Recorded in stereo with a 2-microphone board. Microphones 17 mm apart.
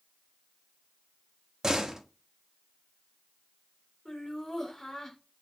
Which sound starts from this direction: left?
Laughter, at 4.0 s.